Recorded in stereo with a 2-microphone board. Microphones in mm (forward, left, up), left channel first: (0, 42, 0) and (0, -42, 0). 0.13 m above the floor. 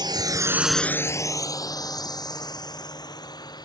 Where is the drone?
60° right (ahead or behind); by 3.7 s 55° left (ahead or behind).